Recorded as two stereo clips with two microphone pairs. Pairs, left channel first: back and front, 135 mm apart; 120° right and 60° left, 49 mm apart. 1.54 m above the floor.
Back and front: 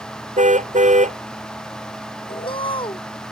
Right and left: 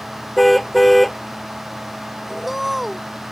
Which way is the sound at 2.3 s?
150° left.